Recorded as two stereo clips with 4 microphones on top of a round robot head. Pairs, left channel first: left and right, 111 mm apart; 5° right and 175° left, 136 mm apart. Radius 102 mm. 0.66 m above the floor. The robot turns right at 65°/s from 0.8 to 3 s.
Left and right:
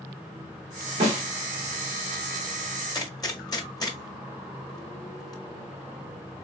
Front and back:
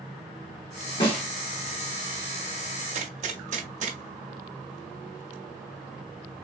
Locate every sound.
1.0 s a snare drum: 55° right, 1.7 m; by 1.2 s 40° right, 1.7 m
2.9 s a gunshot: 140° left, 1.2 m; by 5.3 s 145° left, 1.2 m